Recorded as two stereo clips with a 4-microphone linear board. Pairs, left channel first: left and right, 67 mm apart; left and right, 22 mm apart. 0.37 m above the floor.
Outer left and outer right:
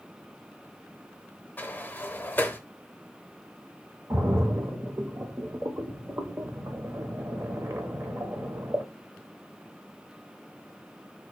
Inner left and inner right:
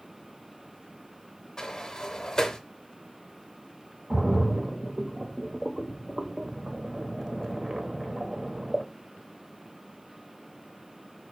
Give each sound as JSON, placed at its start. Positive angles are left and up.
{"t": 1.6, "sound": "a sliding door", "side_deg": 25, "distance_m": 0.7}
{"t": 4.1, "sound": "a splash", "side_deg": -40, "distance_m": 0.9}